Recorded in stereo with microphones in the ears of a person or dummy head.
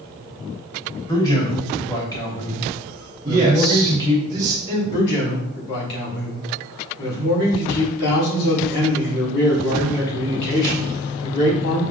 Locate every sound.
1.1 s a man speaking: 15° left (ahead or behind), 1.1 m
3.2 s a man speaking: 20° right (ahead or behind), 1.1 m
4.9 s a man speaking: 55° left (ahead or behind), 2 m